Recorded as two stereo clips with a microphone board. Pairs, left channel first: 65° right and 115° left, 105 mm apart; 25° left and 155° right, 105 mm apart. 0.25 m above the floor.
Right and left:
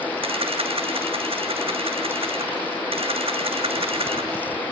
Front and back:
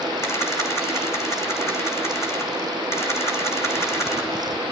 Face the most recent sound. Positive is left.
turn(degrees=90)